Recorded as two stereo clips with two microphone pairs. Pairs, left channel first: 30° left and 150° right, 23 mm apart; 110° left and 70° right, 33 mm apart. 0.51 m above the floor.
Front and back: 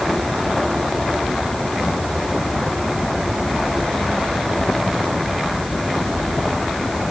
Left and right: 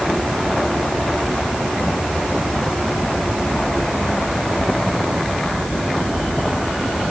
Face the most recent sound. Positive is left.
No sound to turn to.